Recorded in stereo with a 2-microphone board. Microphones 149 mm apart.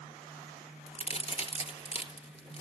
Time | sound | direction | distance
0.9 | a crack | 40° left (ahead or behind) | 3 m